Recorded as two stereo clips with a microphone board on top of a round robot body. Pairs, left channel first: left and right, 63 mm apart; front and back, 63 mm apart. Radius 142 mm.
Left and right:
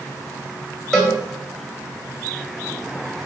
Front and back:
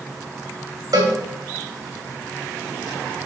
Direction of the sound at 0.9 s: 165° left.